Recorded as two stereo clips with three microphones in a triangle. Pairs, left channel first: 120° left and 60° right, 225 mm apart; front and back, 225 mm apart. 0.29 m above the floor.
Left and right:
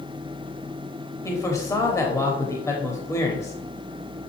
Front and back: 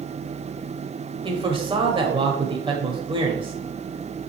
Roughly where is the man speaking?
Behind.